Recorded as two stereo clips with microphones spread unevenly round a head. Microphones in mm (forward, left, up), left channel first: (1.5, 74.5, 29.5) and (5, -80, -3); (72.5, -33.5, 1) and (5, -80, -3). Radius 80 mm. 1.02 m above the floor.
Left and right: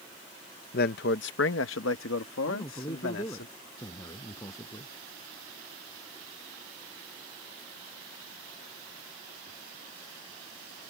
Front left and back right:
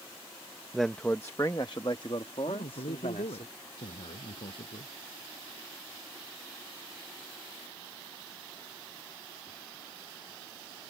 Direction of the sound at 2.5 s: 20° left.